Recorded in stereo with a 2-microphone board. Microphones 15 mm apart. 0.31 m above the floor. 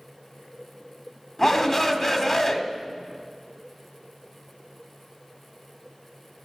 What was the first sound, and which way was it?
A shout, 25° left (ahead or behind).